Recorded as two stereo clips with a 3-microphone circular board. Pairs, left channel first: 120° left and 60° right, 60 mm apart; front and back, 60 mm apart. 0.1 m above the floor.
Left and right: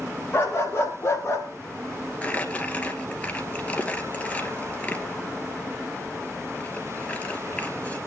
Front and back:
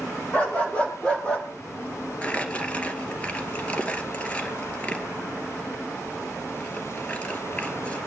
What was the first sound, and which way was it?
A dog barking, 65° left.